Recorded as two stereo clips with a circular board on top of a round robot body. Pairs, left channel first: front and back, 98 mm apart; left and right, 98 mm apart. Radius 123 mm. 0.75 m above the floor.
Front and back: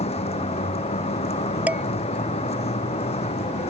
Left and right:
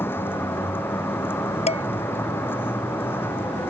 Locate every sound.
0.0 s a vehicle: 20° left
1.7 s dishes clattering: 105° left